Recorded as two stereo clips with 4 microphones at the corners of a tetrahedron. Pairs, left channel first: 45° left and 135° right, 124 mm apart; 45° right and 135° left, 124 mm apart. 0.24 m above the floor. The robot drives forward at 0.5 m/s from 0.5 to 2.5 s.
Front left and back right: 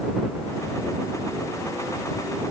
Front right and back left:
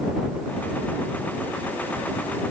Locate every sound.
Only background noise.